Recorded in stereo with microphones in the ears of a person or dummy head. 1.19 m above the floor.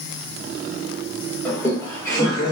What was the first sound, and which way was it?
Laughter, centre (ahead or behind).